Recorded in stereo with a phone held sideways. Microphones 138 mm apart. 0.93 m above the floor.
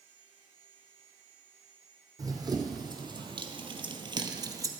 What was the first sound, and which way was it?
Running footsteps, 25° right (ahead or behind).